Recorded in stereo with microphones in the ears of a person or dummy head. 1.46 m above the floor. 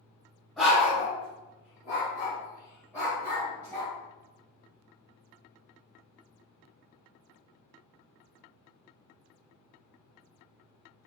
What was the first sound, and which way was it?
A dog barking, centre (ahead or behind).